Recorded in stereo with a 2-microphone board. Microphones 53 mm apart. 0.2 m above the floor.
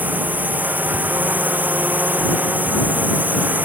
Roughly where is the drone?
Right.